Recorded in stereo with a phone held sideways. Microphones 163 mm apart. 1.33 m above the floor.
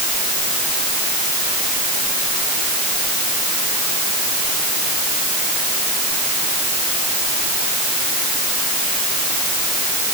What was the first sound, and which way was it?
Only background noise.